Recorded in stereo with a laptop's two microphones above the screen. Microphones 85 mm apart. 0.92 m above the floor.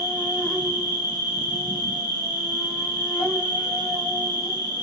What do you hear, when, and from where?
0.0 s an insect: 50° left (ahead or behind), 1.1 m